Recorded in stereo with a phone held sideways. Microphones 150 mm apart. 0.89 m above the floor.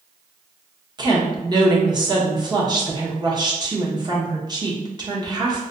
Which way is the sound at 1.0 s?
30° right (ahead or behind).